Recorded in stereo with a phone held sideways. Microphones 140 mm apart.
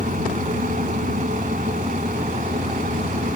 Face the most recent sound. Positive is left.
turn(degrees=-70)  # may be behind; listen again after turning